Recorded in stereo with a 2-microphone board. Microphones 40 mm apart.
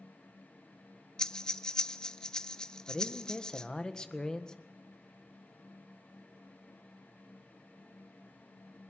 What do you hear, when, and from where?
1.2 s breathing: 20° left (ahead or behind), 0.7 m
2.9 s a man speaking: 20° left (ahead or behind), 1.6 m